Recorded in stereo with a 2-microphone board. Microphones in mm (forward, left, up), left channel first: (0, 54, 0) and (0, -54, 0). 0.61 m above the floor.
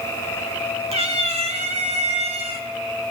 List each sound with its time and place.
0.9 s a cat meowing: 80° right, 1.7 m; by 2.7 s 70° right (ahead or behind), 2 m